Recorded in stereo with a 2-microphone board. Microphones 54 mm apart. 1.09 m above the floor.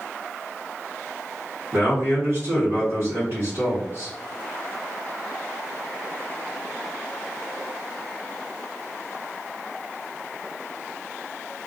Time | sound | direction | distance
1.7 | a man speaking | 50° right (ahead or behind) | 1.1 m